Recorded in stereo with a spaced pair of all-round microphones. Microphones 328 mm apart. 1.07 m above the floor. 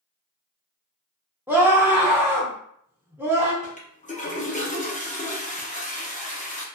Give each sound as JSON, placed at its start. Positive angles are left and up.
{"t": 1.5, "sound": "a scream", "side_deg": -5, "distance_m": 0.7}
{"t": 3.6, "sound": "a toilet flushing", "side_deg": 25, "distance_m": 0.6}